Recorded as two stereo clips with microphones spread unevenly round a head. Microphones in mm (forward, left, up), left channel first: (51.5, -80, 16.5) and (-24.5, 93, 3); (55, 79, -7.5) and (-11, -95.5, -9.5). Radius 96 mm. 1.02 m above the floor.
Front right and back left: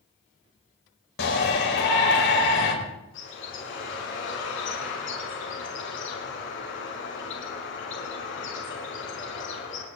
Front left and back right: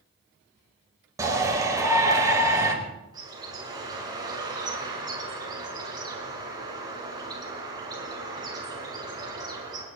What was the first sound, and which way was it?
A shout, 40° right.